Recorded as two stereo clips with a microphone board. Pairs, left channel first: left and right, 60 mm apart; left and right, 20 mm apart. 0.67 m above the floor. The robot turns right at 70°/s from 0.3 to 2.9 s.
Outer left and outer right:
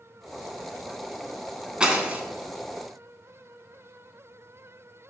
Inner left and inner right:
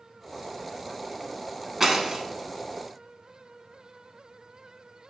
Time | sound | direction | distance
1.8 | breaking glass | 15° right (ahead or behind) | 0.6 m